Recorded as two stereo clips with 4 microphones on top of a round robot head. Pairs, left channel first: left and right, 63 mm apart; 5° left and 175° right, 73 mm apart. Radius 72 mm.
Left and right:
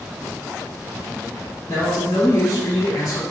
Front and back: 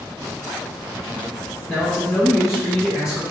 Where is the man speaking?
55° left, 3 m.